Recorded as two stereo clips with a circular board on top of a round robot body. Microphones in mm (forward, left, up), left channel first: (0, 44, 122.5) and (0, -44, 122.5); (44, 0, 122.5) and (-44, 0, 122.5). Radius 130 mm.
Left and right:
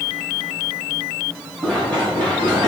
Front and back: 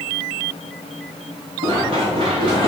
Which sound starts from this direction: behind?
Running footsteps, at 1.6 s.